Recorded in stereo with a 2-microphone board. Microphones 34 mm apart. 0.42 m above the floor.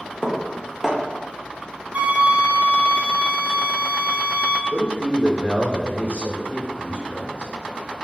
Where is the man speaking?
30° left (ahead or behind), 0.9 m.